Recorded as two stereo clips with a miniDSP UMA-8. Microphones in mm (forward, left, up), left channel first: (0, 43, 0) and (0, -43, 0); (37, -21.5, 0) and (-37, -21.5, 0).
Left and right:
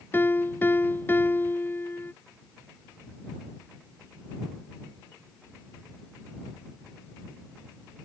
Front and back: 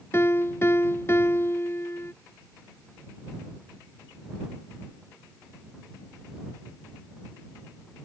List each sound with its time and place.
0.1 s a piano: 35° left